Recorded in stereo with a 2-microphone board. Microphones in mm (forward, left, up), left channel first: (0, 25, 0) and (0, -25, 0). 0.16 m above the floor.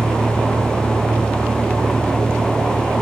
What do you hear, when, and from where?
0.0 s a vehicle: 60° right (ahead or behind); by 3.0 s 50° right (ahead or behind)